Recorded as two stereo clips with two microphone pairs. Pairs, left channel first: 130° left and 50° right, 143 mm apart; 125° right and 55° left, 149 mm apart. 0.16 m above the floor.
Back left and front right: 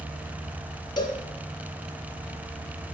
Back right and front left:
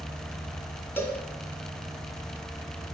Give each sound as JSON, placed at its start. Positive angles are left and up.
{"t": 1.0, "sound": "a cowbell", "azimuth_deg": 170, "distance_m": 1.8}